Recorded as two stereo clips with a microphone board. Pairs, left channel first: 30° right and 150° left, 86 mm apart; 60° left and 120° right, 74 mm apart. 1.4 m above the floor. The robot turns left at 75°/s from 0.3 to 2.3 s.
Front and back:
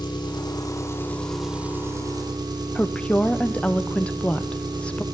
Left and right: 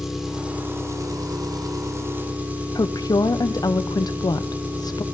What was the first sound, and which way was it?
An engine running, 35° right.